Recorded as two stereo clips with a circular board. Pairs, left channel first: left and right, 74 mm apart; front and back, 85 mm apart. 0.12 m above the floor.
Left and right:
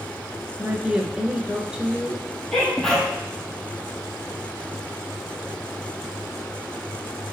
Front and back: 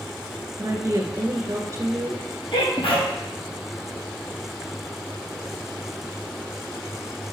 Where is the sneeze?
10° left, 3.5 m.